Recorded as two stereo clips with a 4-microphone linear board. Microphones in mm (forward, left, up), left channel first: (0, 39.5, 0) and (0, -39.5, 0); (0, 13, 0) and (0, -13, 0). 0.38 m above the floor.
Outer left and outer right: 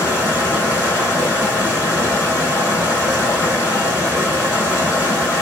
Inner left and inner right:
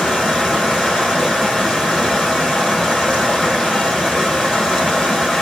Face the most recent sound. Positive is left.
turn(degrees=30)  # may be behind; listen again after turning